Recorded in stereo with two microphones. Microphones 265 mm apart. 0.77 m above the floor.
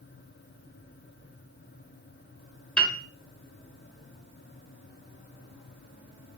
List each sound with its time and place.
2.8 s a piano: 5° left (ahead or behind), 0.5 m